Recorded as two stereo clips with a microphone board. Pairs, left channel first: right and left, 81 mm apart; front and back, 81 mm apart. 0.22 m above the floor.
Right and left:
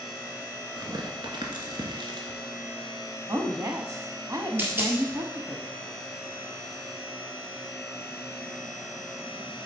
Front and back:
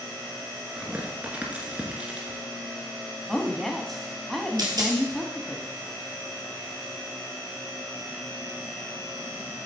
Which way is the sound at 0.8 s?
105° left.